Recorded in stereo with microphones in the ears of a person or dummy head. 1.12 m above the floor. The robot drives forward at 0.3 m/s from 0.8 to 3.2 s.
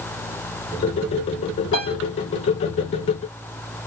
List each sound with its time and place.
1.7 s a piano: 70° left (ahead or behind), 3 m; by 1.9 s 65° left (ahead or behind), 3 m